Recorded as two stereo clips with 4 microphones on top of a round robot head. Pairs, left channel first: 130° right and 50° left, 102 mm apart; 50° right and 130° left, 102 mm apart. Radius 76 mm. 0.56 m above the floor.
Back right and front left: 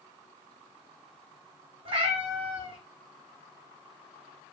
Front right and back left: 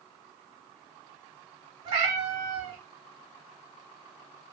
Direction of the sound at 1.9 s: 85° left.